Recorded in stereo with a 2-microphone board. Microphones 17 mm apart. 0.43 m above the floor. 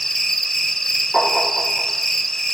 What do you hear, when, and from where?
0.0 s an insect: 25° left (ahead or behind), 1.2 m
1.1 s tapping: 20° left (ahead or behind), 6.5 m